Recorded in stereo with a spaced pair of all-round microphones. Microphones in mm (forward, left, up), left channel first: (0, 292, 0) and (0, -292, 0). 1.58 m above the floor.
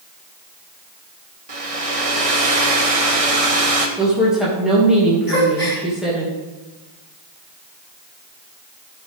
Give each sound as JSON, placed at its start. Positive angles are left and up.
{"t": 1.5, "sound": "a hair dryer", "side_deg": -70, "distance_m": 1.2}
{"t": 4.0, "sound": "a woman speaking", "side_deg": 0, "distance_m": 2.5}
{"t": 5.3, "sound": "a gasp", "side_deg": 35, "distance_m": 3.5}